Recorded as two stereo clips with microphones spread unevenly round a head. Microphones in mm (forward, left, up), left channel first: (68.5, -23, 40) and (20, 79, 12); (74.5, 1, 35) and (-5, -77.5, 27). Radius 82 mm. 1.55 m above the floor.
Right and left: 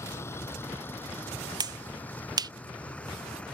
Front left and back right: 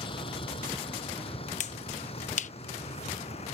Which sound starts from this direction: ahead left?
A finger snap, at 1.6 s.